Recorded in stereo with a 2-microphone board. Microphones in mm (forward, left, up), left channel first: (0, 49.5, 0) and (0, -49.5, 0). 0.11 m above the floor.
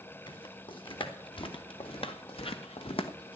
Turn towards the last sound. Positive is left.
turn(degrees=75)  # may be behind; listen again after turning